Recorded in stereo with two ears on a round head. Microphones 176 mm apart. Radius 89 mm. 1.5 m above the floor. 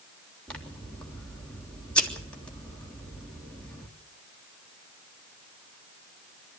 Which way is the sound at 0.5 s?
5° left (ahead or behind).